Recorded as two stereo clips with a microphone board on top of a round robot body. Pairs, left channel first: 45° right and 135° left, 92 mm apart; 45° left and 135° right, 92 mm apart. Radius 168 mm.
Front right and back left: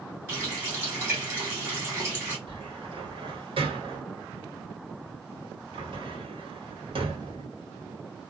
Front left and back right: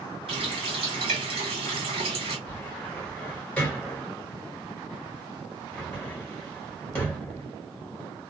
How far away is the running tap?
About 1.3 m.